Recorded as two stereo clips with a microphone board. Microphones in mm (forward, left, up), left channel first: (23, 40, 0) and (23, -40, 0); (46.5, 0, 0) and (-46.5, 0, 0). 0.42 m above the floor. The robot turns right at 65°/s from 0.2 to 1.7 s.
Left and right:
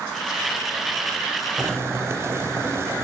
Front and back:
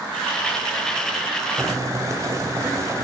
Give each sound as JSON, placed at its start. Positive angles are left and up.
{"t": 1.6, "sound": "boiling", "azimuth_deg": -140, "distance_m": 2.5}